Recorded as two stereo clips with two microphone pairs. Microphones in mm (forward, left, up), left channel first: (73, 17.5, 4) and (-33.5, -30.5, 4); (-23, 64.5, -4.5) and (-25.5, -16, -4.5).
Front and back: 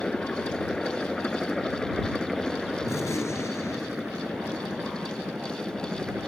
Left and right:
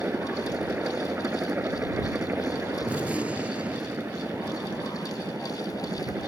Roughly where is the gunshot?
Ahead right.